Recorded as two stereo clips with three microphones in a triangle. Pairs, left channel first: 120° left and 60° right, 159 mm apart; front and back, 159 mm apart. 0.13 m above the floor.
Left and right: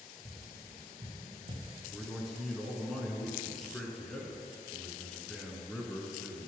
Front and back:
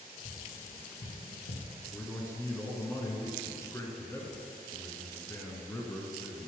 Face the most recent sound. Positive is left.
turn(degrees=35)